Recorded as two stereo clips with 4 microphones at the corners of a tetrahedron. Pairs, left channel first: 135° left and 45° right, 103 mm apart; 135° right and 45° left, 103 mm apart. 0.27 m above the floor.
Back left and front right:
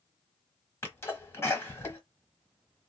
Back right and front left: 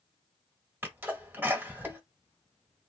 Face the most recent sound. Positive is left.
turn(degrees=95)